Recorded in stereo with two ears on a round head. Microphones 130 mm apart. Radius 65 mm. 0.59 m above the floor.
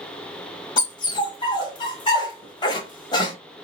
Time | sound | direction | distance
0.8 | a dog barking | 30° left (ahead or behind) | 1.0 m